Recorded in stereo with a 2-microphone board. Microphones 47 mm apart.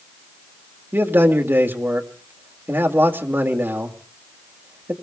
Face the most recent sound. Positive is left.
turn(degrees=-55)  # may be behind; listen again after turning